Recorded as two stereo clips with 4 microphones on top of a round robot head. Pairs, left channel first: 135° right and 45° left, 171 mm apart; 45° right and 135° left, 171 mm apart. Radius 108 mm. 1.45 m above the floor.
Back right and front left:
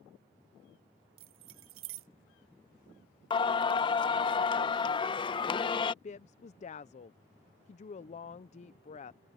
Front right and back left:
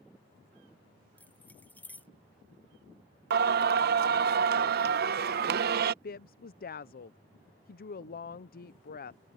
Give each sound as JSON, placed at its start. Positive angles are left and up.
{"t": 1.2, "sound": "keys jangling", "azimuth_deg": 35}
{"t": 3.3, "sound": "singing", "azimuth_deg": 165}
{"t": 6.0, "sound": "a woman speaking", "azimuth_deg": -80}